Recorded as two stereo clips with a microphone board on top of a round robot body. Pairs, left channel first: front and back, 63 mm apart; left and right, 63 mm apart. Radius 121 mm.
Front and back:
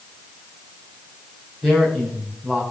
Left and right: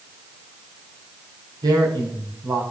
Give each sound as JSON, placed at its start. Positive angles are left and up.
{"t": 1.6, "sound": "a man speaking", "azimuth_deg": -90, "distance_m": 5.5}